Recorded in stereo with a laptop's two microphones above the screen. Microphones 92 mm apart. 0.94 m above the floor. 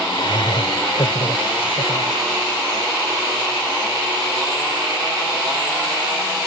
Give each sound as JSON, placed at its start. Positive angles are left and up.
{"t": 0.1, "sound": "laughter", "side_deg": 60}